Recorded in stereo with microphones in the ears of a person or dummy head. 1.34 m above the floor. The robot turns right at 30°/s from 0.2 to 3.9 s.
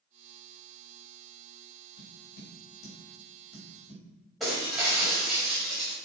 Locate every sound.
2.0 s tapping: 90° left, 6 m; by 4.0 s 35° left (ahead or behind), 6 m
4.4 s breaking glass: centre (ahead or behind), 5 m